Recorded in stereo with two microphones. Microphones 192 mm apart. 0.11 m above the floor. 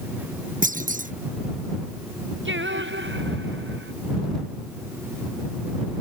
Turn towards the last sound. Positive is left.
turn(degrees=-80)